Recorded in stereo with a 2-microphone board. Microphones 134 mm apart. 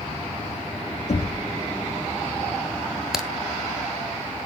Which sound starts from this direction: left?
Knocking, at 1.1 s.